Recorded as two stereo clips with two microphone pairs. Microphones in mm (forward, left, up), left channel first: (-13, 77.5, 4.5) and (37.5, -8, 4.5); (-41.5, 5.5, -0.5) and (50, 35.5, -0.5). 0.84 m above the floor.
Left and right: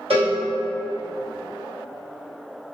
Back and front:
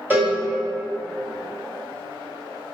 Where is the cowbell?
50° right, 0.8 m.